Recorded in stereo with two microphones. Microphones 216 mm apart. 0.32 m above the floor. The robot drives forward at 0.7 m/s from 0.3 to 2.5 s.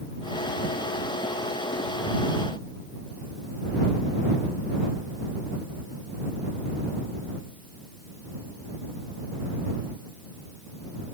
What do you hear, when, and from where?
Only background noise.